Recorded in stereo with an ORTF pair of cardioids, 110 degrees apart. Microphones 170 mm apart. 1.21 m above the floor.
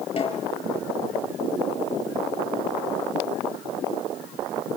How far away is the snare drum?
About 7 m.